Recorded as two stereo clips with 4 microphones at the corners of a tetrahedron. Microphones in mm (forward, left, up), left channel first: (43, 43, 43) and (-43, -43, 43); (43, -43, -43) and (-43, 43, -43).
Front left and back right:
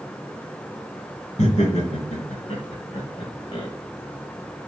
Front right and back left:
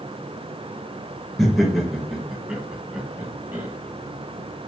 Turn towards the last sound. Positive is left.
turn(degrees=75)